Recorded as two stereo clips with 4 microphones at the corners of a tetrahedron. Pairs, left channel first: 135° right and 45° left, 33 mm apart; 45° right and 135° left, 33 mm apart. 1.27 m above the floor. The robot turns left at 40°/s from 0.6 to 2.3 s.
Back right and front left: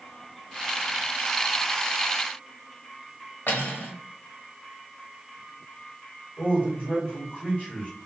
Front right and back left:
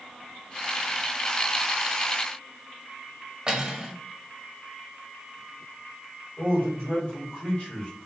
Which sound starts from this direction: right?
A man speaking, at 6.4 s.